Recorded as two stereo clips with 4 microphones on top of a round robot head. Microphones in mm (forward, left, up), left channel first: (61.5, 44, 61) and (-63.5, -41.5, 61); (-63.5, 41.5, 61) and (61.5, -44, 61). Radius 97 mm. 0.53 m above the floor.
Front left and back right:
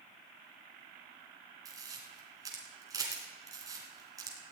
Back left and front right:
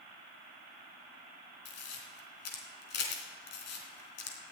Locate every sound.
1.6 s a camera shutter: 145° left, 3 m